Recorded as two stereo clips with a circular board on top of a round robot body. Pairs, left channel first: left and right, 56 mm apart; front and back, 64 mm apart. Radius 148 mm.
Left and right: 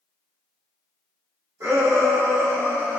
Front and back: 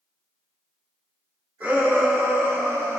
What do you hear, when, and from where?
1.6 s a shout: 120° right, 3.5 m; by 3.0 s 150° right, 2.5 m